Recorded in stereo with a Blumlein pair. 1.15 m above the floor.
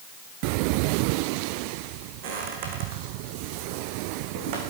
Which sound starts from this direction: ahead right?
Footsteps, at 2.2 s.